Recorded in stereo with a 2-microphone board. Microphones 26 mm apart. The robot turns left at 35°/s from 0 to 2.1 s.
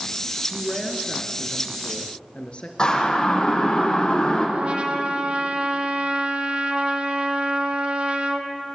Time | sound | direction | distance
0.5 | a woman speaking | straight behind | 2.5 m
2.8 | a siren | 25° left (ahead or behind) | 9.5 m
4.5 | a trumpet | 45° right (ahead or behind) | 2 m